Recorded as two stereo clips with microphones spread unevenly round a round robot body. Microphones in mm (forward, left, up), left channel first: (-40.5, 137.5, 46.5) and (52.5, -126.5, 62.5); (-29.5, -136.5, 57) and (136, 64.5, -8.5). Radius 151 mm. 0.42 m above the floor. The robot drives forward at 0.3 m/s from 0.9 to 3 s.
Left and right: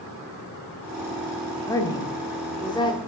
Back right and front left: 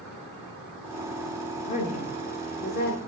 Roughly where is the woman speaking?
Behind.